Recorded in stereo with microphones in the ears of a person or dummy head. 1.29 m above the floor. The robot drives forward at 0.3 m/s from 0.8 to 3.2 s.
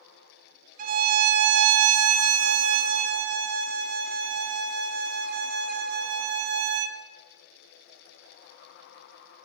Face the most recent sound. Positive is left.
turn(degrees=-55)  # may be behind; listen again after turning